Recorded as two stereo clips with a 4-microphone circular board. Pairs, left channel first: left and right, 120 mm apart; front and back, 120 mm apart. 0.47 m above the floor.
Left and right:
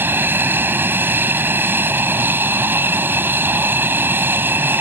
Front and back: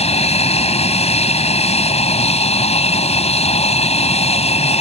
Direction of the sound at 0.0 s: 20° right.